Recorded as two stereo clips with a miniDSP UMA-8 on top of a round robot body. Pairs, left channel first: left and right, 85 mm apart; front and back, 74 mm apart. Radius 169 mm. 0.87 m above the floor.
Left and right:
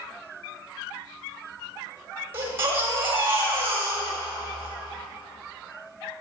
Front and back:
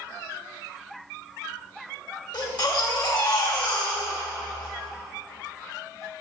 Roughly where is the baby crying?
Ahead right.